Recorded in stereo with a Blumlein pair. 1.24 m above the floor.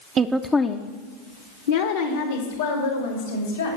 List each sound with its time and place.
0.2 s a woman speaking: 25° right, 0.5 m; by 3.8 s 75° left, 3 m